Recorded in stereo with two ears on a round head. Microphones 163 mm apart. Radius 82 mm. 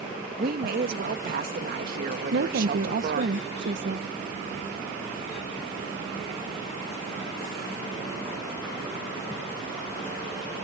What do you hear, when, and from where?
0.4 s a woman speaking: 55° right (ahead or behind)
2.3 s a woman speaking: 70° right (ahead or behind)